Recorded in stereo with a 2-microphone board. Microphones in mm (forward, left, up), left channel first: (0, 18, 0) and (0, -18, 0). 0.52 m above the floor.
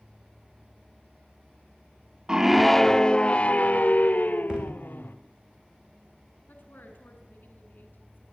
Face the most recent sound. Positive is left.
turn(degrees=70)  # may be behind; listen again after turning